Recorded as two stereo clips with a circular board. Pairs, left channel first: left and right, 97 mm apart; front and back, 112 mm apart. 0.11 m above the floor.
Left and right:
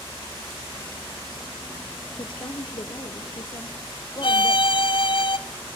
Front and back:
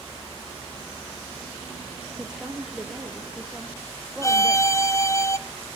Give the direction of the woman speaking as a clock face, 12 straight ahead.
9 o'clock.